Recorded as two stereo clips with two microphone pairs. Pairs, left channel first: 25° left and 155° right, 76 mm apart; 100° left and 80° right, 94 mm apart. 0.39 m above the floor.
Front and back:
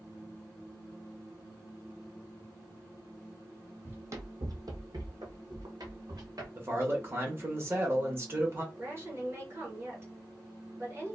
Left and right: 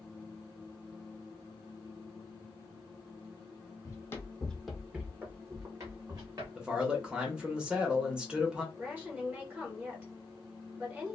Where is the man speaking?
145° right, 0.9 m.